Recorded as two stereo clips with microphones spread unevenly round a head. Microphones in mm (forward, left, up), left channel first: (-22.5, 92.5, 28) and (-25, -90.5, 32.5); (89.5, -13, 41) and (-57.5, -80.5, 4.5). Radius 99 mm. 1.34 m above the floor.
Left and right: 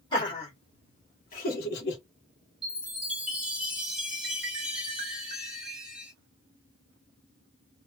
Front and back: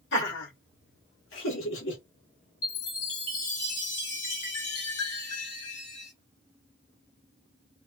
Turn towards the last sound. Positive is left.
turn(degrees=-5)